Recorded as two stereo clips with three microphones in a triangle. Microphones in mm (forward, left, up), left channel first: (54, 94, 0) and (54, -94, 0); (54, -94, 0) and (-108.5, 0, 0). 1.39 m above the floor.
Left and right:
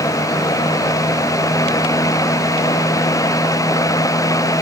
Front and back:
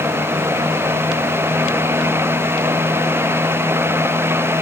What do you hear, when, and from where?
Only background noise.